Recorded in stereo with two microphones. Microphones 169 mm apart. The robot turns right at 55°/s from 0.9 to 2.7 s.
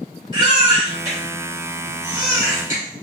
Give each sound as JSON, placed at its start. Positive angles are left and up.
{"t": 0.3, "sound": "a baby crying", "side_deg": -30, "distance_m": 2.0}